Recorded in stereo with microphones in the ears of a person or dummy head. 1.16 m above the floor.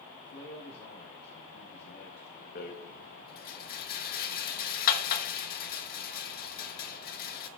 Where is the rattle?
50° left (ahead or behind), 1.2 m.